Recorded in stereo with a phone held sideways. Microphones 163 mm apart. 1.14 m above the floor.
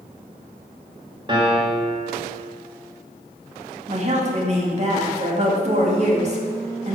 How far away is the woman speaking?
About 2.5 m.